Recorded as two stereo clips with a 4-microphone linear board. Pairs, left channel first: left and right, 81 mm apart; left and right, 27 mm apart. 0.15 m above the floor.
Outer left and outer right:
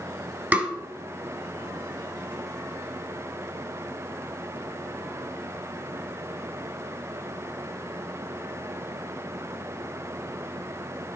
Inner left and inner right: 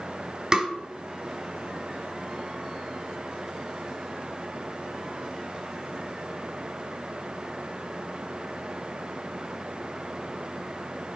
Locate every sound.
0.5 s tapping: 20° right (ahead or behind), 1.7 m